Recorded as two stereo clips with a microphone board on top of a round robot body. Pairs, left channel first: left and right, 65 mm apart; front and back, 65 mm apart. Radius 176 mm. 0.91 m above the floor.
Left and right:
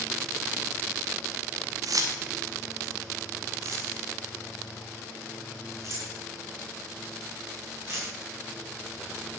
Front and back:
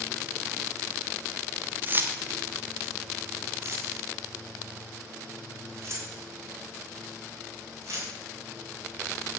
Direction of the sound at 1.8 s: 120° right.